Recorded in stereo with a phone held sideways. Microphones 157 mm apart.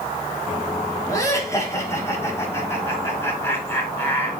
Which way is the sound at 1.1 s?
20° left (ahead or behind).